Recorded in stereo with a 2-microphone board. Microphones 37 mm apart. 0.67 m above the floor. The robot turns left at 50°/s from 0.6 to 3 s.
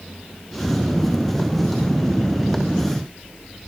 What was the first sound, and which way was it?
Only background noise.